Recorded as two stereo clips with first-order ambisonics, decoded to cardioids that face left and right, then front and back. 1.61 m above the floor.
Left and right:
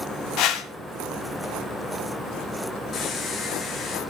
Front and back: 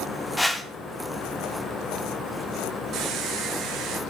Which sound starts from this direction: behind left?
A squeak, at 2.9 s.